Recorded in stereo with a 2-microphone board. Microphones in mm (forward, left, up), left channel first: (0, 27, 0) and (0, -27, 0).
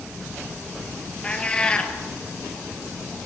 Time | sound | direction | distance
1.2 | a cat meowing | 20° left (ahead or behind) | 1.9 m